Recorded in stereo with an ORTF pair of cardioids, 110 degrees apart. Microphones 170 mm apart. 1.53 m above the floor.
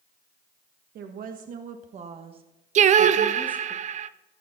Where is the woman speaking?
65° right, 1.5 m; by 3.8 s 5° right, 1.5 m.